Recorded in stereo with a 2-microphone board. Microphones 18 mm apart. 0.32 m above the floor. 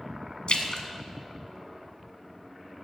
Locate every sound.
0.5 s a splash: 60° left (ahead or behind), 0.9 m